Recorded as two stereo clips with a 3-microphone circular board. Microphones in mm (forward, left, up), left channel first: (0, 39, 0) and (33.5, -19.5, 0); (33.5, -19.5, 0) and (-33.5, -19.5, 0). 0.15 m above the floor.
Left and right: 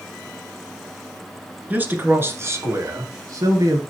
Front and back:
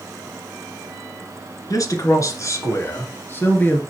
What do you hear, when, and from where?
1.7 s a man speaking: straight ahead, 2 m; by 3.8 s 60° right, 2.5 m